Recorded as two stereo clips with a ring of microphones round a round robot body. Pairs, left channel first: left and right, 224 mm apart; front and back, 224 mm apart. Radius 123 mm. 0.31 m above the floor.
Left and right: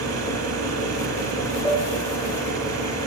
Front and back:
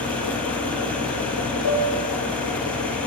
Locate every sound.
0.0 s an engine running: 85° right, 8 m
1.6 s a piano: 20° left, 2 m